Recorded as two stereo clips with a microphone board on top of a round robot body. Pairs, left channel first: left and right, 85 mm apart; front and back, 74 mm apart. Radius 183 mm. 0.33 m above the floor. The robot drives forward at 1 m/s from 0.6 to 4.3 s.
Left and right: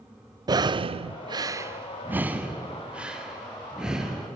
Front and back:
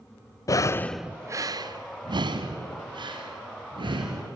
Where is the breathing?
50° right, 0.6 m; by 4.4 s 175° right, 3.5 m.